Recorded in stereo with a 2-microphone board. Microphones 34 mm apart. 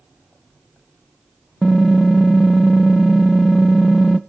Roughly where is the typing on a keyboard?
Centre.